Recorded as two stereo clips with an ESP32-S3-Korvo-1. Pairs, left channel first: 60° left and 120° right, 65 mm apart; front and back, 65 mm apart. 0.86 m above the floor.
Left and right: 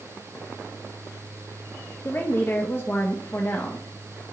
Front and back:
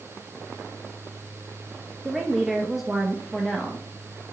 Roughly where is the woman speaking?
Left.